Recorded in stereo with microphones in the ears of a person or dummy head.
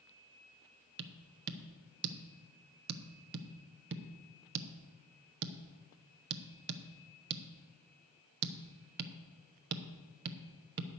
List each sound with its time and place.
1.0 s tapping: 50° right (ahead or behind), 0.7 m